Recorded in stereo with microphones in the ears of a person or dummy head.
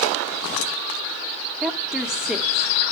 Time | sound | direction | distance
1.6 | a woman speaking | centre (ahead or behind) | 0.8 m